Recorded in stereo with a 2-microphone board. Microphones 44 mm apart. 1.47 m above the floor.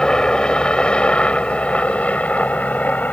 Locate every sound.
0.0 s a helicopter: 20° left (ahead or behind); by 3.1 s 40° left (ahead or behind)